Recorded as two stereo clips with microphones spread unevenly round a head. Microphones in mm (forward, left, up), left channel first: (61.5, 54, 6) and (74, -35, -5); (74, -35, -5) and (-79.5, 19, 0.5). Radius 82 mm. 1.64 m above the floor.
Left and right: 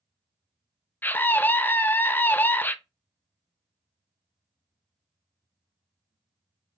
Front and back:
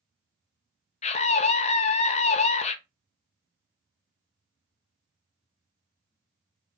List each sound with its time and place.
1.0 s a scream: 35° left, 0.7 m